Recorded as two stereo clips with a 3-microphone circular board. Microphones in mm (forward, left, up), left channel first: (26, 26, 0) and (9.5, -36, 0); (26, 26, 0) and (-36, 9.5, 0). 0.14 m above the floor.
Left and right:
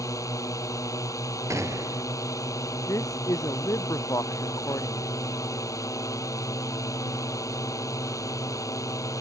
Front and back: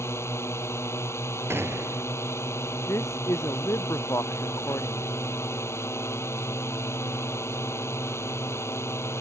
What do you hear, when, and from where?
0.0 s a drone: 55° left
1.5 s a gunshot: 125° right
2.9 s a man speaking: 50° left